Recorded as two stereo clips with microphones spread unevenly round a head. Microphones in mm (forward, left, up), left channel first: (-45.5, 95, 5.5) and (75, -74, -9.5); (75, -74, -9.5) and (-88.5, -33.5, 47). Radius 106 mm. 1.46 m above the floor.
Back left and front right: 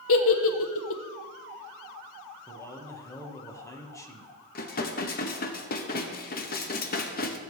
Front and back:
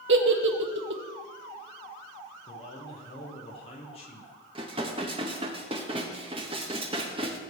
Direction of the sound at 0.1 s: 150° left.